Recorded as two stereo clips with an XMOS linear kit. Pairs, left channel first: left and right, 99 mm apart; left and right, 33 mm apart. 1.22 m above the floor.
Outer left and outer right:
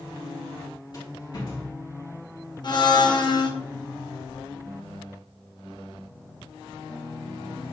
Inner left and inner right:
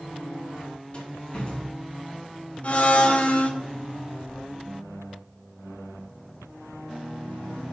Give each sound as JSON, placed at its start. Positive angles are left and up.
{"t": 0.9, "sound": "a rattle", "side_deg": 40, "distance_m": 1.8}
{"t": 2.6, "sound": "a blender", "side_deg": 45, "distance_m": 0.8}